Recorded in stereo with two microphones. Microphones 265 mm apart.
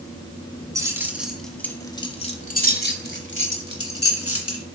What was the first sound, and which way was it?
Keys jangling, 15° right (ahead or behind).